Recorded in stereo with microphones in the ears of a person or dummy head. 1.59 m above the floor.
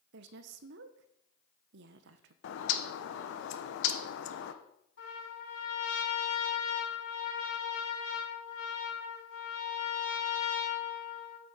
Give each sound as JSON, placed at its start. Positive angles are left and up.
{"t": 0.1, "sound": "a woman speaking", "side_deg": -65, "distance_m": 0.9}
{"t": 2.4, "sound": "a bird", "side_deg": 75, "distance_m": 1.0}
{"t": 5.0, "sound": "a trumpet", "side_deg": 80, "distance_m": 6.5}